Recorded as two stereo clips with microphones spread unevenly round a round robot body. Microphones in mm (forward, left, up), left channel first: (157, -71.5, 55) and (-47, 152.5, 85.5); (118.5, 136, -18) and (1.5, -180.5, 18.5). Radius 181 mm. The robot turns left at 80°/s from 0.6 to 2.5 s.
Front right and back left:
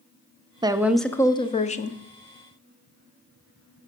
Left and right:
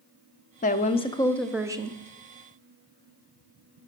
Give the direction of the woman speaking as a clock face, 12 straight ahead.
10 o'clock.